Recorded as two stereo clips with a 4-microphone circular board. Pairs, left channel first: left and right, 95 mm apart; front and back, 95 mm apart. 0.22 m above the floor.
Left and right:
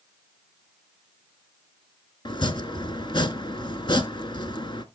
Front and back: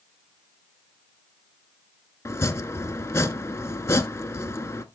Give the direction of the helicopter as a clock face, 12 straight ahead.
I don't hear a helicopter.